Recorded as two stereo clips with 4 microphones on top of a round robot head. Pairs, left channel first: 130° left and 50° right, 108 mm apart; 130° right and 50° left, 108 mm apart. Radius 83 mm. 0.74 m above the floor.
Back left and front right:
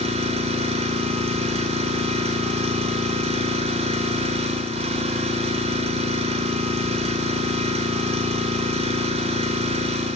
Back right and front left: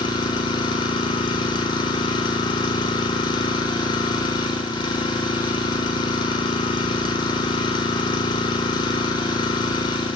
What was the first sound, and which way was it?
An engine running, 80° right.